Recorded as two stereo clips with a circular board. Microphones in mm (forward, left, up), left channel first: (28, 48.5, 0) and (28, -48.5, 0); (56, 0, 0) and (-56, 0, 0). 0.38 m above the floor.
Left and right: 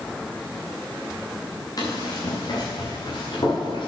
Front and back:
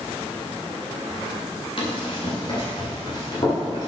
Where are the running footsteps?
40° left, 4.5 m; by 3.9 s 55° left, 5 m.